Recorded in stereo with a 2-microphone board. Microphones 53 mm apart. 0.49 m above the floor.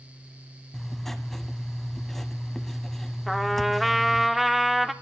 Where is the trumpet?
Centre (ahead or behind), 0.5 m.